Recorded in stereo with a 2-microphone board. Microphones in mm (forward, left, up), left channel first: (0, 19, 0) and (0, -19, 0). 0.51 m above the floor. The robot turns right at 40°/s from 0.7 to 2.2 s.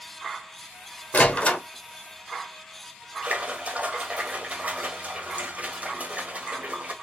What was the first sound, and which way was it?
A door slam, 45° left (ahead or behind).